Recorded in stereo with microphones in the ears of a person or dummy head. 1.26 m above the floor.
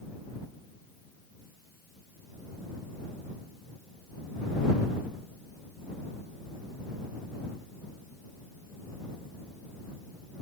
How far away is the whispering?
No whispering in this recording.